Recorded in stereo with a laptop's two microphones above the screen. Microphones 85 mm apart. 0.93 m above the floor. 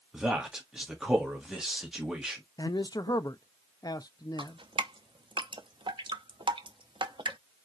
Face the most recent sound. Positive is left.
turn(degrees=-80)